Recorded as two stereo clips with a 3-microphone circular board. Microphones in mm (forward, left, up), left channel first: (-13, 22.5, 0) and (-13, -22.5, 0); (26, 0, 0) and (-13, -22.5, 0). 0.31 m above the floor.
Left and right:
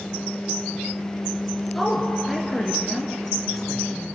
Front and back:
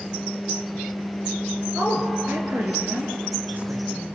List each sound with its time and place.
1.8 s a woman speaking: 175° left, 4.5 m